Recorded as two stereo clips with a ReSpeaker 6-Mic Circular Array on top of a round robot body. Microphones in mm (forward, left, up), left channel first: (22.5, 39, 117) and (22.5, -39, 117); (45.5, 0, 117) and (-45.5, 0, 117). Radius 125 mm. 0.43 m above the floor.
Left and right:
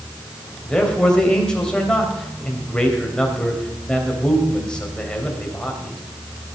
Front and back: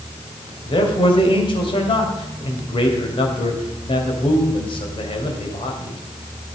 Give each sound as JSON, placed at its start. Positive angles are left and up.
{"t": 0.7, "sound": "a man speaking", "azimuth_deg": 10, "distance_m": 3.0}